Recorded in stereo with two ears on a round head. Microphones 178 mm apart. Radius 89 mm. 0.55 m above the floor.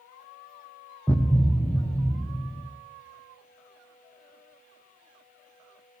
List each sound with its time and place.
1.1 s a thud: 5° left (ahead or behind), 1.4 m